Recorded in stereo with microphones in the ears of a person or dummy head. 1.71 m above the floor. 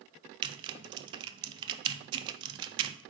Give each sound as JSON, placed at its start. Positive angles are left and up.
{"t": 0.4, "sound": "typing on a keyboard", "side_deg": -35, "distance_m": 0.6}